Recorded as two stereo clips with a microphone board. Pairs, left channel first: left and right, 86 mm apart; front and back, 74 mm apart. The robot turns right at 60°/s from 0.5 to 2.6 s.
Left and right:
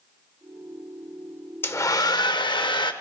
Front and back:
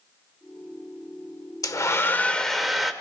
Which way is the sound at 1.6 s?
30° left.